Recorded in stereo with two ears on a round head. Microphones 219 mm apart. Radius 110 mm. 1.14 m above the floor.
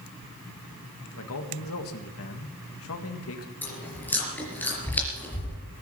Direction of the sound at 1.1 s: 65° left (ahead or behind).